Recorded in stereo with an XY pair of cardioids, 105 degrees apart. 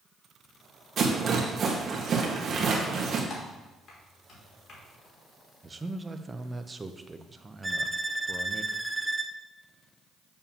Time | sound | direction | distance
1.0 | a rattle | 50° right | 1.6 m
3.3 | typing on a keyboard | 60° left | 2.5 m
5.6 | a man speaking | 20° right | 0.6 m
7.6 | a violin | 10° right | 0.5 m